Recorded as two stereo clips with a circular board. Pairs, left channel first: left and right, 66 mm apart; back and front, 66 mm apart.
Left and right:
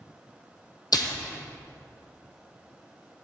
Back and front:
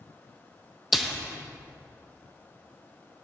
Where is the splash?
85° left, 1.1 m.